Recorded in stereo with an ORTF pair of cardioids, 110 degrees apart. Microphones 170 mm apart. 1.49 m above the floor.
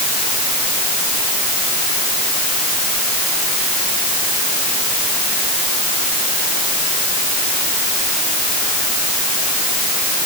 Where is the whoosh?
I don't hear a whoosh.